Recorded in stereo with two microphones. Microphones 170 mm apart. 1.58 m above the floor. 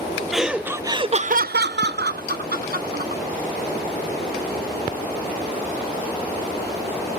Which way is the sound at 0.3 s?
Centre (ahead or behind).